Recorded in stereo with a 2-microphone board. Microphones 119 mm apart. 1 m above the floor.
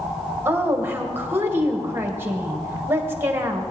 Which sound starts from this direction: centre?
A woman speaking, at 0.5 s.